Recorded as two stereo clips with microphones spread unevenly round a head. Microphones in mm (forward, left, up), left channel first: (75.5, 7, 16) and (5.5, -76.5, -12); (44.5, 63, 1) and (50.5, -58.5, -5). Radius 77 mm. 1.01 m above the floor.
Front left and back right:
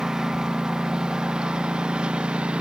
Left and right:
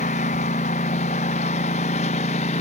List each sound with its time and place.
0.0 s a lawn mower: 140° left; by 2.6 s 145° left